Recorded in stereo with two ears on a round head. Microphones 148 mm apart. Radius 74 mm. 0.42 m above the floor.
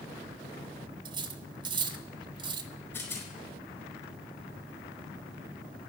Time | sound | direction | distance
1.1 | cutlery clinking | 30° right (ahead or behind) | 0.8 m
2.9 | a rattle | 15° left (ahead or behind) | 4.5 m